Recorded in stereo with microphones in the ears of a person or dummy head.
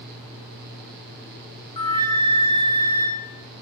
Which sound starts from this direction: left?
A flute, at 1.8 s.